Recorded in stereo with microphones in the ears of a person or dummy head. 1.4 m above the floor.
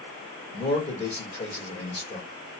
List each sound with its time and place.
0.5 s a man speaking: 20° left (ahead or behind), 2 m